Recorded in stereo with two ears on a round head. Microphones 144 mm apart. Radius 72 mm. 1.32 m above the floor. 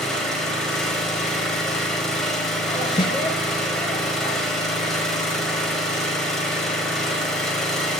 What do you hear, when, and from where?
0.0 s an engine running: 5° left (ahead or behind), 5.5 m
3.0 s a snare drum: 30° left (ahead or behind), 0.7 m